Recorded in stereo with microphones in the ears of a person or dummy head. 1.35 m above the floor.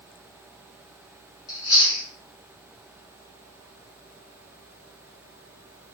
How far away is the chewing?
About 0.9 m.